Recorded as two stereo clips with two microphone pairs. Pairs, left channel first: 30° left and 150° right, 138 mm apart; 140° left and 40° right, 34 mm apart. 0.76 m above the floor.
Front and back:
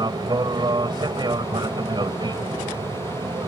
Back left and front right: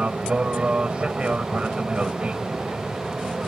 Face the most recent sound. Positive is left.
turn(degrees=-95)